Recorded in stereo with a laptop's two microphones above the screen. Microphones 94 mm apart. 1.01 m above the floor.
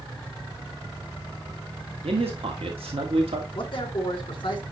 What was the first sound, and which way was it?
A man speaking, 85° right.